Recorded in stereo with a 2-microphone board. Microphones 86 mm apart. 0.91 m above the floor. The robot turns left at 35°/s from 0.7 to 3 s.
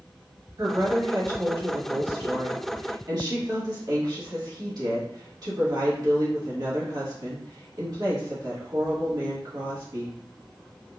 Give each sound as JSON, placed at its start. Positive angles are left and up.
{"t": 0.6, "sound": "a woman speaking", "azimuth_deg": -45, "distance_m": 1.6}